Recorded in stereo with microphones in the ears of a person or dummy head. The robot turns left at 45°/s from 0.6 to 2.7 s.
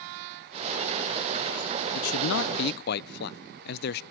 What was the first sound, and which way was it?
A man speaking, 90° left.